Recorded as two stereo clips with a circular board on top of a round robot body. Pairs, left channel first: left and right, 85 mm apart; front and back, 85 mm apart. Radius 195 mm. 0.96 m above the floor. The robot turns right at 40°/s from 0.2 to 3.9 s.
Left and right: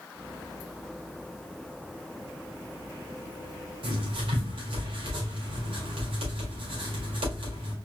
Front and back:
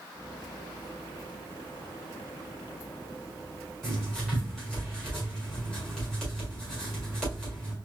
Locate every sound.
3.8 s writing: 85° right, 1.8 m; by 7.8 s 80° right, 1.8 m